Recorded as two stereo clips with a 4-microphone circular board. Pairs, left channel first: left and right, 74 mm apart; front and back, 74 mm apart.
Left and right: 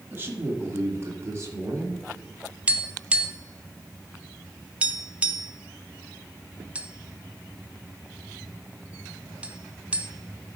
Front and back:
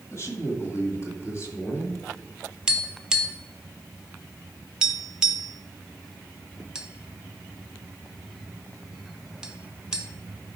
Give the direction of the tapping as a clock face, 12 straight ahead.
4 o'clock.